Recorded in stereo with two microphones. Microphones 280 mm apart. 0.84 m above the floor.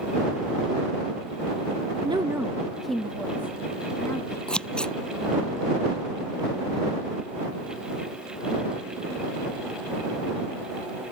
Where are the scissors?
5° left (ahead or behind).